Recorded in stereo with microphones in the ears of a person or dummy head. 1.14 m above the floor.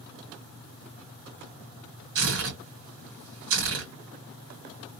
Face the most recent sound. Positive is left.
turn(degrees=-70)  # may be behind; listen again after turning